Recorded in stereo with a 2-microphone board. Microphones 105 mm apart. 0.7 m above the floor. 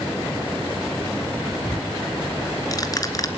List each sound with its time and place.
1.6 s ticking: 35° left (ahead or behind), 2.5 m